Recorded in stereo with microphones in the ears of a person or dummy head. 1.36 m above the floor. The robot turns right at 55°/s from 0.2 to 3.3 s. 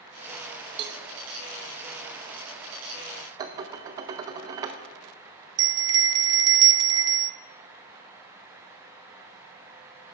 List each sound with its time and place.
0.8 s a cowbell: 35° right (ahead or behind), 0.7 m; by 1.0 s 30° right (ahead or behind), 0.7 m
3.4 s dishes clattering: 25° right (ahead or behind), 0.6 m
5.6 s a bell: 25° right (ahead or behind), 0.5 m